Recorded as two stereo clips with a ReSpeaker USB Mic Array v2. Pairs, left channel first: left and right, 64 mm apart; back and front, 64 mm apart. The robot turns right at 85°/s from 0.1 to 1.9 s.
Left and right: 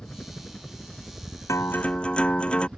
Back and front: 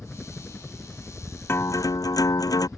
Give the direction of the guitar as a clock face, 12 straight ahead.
8 o'clock.